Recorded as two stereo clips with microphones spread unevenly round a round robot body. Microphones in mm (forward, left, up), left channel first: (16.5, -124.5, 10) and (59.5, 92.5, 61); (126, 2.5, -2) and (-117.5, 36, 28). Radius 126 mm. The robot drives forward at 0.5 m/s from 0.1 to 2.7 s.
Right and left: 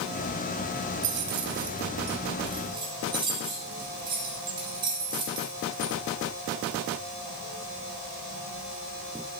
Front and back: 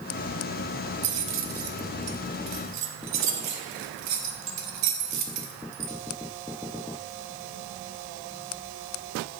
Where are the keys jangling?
125° left, 0.8 m; by 5.9 s 155° left, 1.4 m.